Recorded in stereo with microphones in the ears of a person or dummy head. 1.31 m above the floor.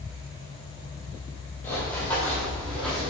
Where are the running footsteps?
25° left (ahead or behind), 2.5 m; by 3.1 s 10° left (ahead or behind), 3 m.